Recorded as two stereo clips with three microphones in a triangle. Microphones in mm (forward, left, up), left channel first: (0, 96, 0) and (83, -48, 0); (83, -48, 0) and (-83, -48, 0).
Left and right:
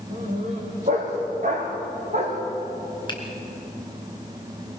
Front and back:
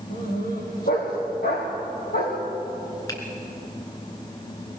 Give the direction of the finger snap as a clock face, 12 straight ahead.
10 o'clock.